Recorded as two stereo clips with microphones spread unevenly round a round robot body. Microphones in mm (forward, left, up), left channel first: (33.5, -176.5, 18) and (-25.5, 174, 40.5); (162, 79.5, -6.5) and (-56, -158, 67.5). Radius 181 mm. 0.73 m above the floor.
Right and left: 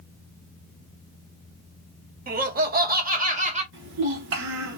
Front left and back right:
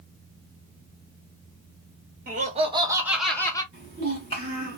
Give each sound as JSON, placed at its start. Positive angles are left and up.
{"t": 2.3, "sound": "laughter", "azimuth_deg": 155, "distance_m": 1.2}
{"t": 3.7, "sound": "a child speaking", "azimuth_deg": 160, "distance_m": 1.3}